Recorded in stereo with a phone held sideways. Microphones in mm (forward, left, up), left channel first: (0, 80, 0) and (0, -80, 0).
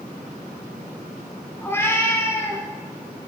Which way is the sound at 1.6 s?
15° left (ahead or behind).